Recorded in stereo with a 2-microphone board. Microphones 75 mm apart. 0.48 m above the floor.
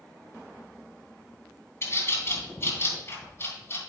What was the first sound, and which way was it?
A bird, 35° left (ahead or behind).